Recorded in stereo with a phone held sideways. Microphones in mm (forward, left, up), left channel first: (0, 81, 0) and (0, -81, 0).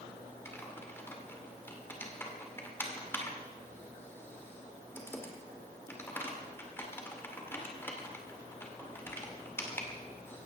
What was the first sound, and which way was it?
Typing on a keyboard, 15° left (ahead or behind).